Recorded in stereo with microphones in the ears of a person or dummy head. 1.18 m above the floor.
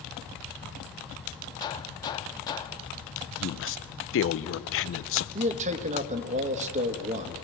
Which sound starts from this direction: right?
A man speaking, at 5.3 s.